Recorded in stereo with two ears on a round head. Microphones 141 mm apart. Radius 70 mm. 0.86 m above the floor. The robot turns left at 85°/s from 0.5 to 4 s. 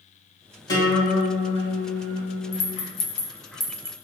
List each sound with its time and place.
0.7 s a guitar: 25° left, 1.4 m; by 2.9 s 160° right, 1.4 m
2.5 s a rattle: 50° left (ahead or behind), 0.7 m; by 3.9 s 20° right (ahead or behind), 0.7 m